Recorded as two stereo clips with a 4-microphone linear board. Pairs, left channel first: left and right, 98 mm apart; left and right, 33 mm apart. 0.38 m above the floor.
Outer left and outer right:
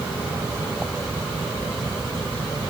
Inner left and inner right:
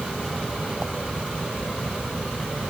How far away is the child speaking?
I don't hear a child speaking.